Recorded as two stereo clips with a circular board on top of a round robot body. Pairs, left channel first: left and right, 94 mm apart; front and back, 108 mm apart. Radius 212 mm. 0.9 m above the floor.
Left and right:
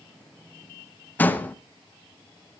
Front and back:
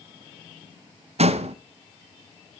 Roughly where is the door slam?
Behind.